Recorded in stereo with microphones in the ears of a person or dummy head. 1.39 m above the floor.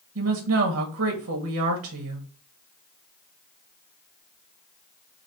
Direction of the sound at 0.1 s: 75° right (ahead or behind).